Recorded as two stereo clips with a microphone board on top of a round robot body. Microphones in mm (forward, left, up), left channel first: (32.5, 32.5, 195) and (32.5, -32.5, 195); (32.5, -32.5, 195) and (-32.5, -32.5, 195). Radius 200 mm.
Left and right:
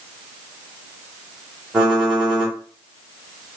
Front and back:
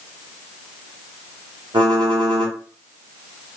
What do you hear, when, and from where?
1.7 s typing on a keyboard: 170° right, 0.8 m